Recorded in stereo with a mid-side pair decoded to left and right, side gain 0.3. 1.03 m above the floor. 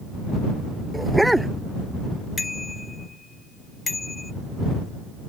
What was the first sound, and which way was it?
A dog barking, 15° right.